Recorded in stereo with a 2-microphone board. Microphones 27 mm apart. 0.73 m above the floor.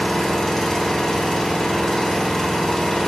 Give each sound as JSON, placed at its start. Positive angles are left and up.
{"t": 0.0, "sound": "an engine running", "side_deg": 20, "distance_m": 0.8}